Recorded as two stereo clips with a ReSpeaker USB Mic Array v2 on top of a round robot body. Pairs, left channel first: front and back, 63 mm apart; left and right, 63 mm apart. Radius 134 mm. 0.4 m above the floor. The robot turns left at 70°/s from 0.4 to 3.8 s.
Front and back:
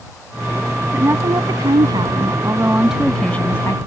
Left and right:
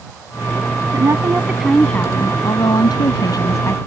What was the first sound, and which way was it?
A woman speaking, 125° right.